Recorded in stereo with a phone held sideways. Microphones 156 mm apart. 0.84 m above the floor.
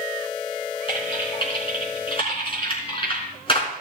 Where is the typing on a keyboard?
35° left (ahead or behind), 3.5 m.